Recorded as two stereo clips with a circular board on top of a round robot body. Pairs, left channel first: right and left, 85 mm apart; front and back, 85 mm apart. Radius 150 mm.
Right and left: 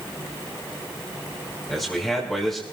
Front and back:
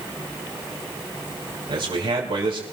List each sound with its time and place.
1.7 s a man speaking: 175° right, 4 m